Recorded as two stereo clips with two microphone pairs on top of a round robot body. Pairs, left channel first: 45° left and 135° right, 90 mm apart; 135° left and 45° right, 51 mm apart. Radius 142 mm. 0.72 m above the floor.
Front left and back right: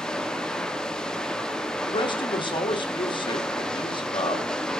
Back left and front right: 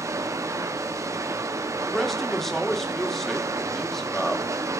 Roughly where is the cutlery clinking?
No cutlery clinking in this recording.